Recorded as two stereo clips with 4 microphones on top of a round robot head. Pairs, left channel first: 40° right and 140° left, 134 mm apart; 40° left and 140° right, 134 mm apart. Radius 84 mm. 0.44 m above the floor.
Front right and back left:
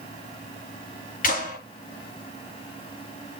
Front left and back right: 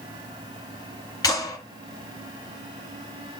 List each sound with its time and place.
1.2 s a clap: 20° right, 8 m